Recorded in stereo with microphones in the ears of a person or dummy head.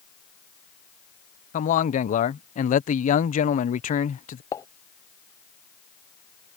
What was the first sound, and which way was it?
A man speaking, 40° left (ahead or behind).